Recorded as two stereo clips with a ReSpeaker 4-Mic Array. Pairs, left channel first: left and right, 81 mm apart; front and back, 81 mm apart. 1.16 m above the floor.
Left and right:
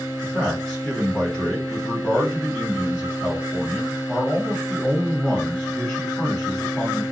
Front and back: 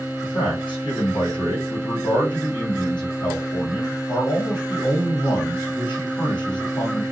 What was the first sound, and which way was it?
A man speaking, 15° left.